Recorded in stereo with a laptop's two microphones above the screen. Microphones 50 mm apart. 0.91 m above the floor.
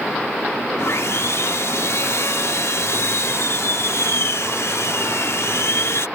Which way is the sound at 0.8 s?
65° left (ahead or behind).